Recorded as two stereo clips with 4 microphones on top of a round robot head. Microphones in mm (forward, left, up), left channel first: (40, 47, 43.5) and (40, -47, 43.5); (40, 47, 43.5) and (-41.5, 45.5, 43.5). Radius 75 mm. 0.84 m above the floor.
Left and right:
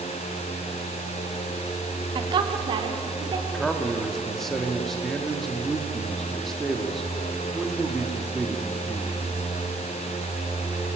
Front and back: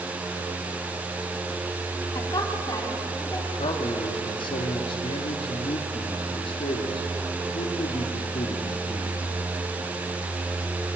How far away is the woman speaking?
About 2.5 m.